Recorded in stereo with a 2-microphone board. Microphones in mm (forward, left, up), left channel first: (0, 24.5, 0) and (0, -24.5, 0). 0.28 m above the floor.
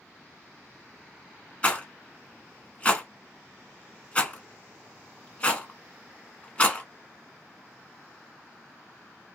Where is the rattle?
25° left (ahead or behind), 0.7 m.